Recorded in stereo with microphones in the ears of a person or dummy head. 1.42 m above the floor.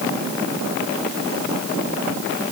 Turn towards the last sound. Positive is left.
No sound to turn to.